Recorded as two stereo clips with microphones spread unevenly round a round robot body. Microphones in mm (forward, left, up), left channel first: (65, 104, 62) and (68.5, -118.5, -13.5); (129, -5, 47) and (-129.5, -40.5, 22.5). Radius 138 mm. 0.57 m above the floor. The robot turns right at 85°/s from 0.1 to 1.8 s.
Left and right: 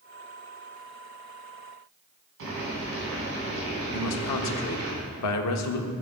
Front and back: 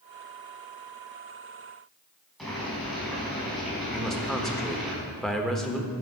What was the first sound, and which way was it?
Boiling, 80° right.